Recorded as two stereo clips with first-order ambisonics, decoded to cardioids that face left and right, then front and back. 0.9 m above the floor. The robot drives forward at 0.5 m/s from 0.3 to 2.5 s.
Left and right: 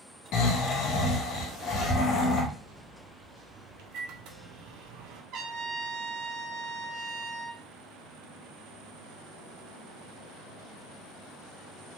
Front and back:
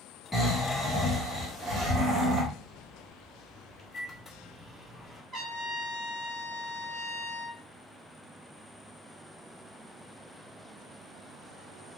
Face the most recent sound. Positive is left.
turn(degrees=-120)